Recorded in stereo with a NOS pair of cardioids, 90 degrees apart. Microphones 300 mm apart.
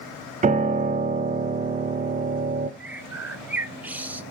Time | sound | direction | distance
0.4 | a piano | 25° right | 0.7 m
2.8 | a bird | 5° right | 0.7 m